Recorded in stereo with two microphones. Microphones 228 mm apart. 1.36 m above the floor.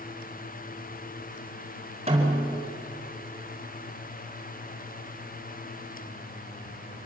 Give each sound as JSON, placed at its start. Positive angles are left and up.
{"t": 2.1, "sound": "a snare drum", "side_deg": -25, "distance_m": 5.0}